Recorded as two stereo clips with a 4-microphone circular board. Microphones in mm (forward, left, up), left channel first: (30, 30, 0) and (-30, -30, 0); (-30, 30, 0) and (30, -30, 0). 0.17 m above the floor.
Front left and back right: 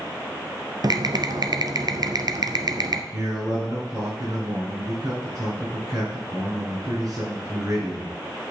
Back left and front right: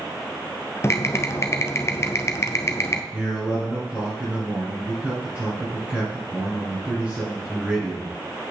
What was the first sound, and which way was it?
Typing on a keyboard, 170° right.